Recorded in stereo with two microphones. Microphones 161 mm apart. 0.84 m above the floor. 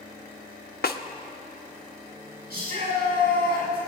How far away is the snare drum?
About 0.8 m.